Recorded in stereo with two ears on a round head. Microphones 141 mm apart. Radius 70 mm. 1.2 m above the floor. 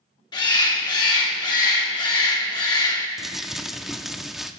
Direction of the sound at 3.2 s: Centre (ahead or behind).